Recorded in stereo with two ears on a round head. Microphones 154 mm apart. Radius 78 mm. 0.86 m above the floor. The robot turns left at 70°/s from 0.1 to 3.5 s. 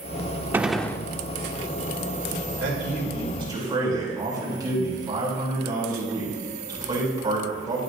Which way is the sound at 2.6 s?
90° right.